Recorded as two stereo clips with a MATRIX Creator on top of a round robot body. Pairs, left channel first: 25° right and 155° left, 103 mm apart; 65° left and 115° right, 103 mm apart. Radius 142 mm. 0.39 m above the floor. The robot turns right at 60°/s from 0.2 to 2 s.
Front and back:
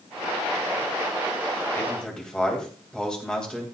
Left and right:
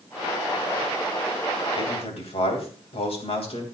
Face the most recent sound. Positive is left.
turn(degrees=60)